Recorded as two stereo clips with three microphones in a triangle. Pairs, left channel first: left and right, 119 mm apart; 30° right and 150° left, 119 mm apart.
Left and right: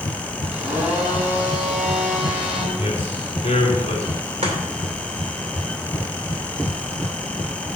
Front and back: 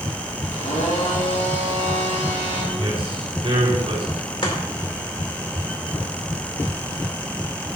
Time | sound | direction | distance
0.5 | a blender | 15° right | 3 m
2.7 | a man speaking | 115° left | 3.5 m
4.4 | chopping | 70° right | 2 m